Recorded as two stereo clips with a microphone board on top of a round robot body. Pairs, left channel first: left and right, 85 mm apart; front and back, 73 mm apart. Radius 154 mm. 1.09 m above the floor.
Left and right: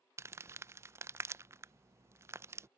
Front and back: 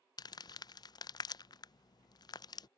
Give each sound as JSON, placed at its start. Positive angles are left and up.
{"t": 0.2, "sound": "crumpling", "azimuth_deg": -30}